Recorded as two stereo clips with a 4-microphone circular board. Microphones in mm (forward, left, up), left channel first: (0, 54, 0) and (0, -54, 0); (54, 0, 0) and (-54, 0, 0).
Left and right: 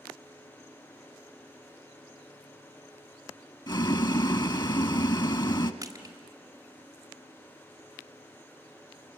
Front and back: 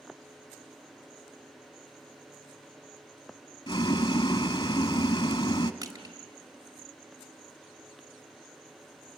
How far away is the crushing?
About 2.0 m.